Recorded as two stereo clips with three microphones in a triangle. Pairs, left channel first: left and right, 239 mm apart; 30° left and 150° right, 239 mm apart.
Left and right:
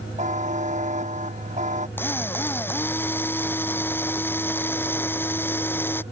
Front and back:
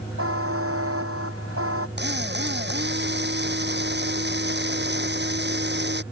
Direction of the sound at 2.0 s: 170° left.